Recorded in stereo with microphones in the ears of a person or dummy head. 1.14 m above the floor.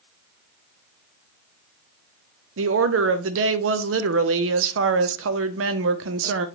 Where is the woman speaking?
70° right (ahead or behind), 0.7 m.